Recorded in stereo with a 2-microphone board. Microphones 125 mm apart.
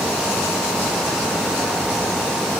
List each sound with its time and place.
Only background noise.